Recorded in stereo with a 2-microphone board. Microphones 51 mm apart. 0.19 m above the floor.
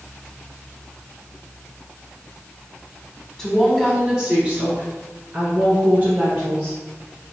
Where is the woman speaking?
10° left (ahead or behind), 1.3 m; by 6.8 s 40° right (ahead or behind), 3 m.